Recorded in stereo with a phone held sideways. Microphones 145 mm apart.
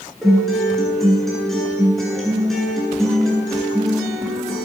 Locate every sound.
0.2 s a guitar: centre (ahead or behind), 9.5 m